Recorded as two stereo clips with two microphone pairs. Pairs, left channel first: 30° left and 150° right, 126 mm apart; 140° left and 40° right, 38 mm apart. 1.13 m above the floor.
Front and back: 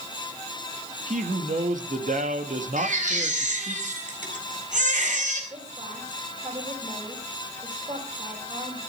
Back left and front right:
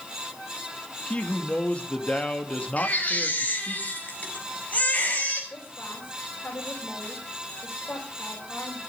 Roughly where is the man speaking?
Behind.